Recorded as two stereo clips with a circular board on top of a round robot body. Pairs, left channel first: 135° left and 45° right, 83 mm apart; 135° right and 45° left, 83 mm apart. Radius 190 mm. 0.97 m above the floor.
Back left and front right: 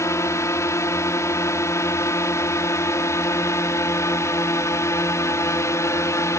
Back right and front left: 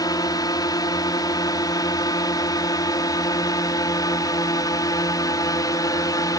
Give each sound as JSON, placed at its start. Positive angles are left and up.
{"t": 0.0, "sound": "a drone", "azimuth_deg": -170}